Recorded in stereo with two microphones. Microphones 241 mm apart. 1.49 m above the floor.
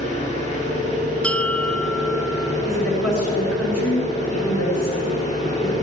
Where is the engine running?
25° left (ahead or behind), 5.5 m.